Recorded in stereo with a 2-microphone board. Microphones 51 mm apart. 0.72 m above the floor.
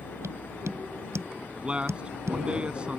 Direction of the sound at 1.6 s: 20° right (ahead or behind).